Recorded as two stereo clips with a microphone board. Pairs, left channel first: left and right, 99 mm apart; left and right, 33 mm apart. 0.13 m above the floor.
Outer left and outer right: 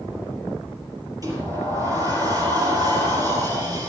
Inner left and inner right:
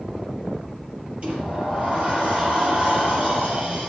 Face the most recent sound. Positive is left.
turn(degrees=-40)  # may be behind; listen again after turning